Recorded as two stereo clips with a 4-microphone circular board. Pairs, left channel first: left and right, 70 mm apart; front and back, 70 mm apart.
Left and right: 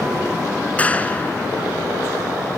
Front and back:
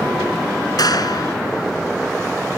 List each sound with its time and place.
0.8 s a clap: 20° left